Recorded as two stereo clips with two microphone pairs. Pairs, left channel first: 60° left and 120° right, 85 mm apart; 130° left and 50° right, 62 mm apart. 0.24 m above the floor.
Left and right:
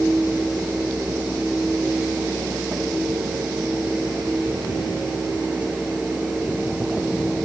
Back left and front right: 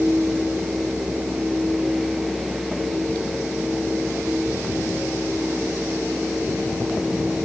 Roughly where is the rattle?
No rattle in this recording.